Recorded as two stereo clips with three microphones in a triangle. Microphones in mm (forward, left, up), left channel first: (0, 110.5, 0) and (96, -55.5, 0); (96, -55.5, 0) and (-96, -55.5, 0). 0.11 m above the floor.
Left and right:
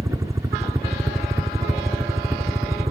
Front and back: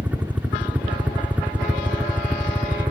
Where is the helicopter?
110° right.